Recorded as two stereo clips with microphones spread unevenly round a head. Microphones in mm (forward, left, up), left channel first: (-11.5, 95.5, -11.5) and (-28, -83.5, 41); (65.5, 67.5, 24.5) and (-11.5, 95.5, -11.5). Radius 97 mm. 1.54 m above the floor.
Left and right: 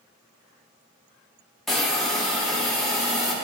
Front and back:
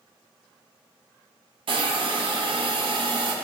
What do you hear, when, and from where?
1.7 s a hiss: 170° left, 1.8 m